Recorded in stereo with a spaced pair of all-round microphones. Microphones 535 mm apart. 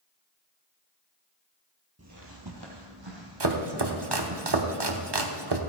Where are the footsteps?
30° right (ahead or behind), 1.2 m; by 4.4 s 65° right (ahead or behind), 3.5 m.